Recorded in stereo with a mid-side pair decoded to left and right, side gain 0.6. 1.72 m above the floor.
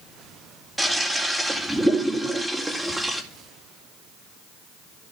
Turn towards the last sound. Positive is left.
turn(degrees=-10)